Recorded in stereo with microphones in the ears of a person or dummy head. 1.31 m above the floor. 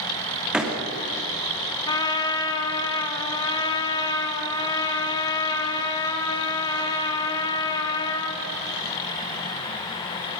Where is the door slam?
5° right (ahead or behind), 2.5 m.